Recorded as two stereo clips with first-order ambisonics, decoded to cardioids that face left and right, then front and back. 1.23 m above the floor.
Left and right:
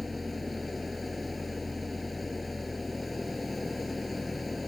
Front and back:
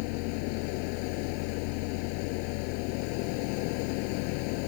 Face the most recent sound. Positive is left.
turn(degrees=10)